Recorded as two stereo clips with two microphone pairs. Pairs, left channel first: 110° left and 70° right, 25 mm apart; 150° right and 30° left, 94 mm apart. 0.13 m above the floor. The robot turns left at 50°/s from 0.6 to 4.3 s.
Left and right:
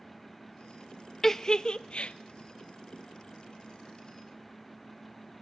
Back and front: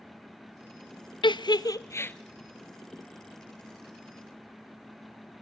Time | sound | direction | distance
1.2 | a giggle | 175° right | 0.5 m